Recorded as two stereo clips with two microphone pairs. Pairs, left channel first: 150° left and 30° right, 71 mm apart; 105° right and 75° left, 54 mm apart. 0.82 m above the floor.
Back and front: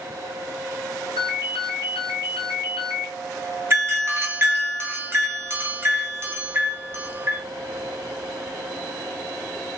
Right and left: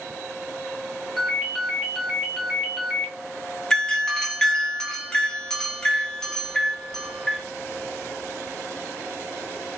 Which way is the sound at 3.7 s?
35° right.